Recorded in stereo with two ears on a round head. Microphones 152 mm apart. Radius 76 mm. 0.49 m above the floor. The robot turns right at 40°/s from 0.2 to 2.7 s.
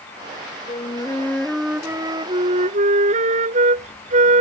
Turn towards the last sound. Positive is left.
turn(degrees=-135)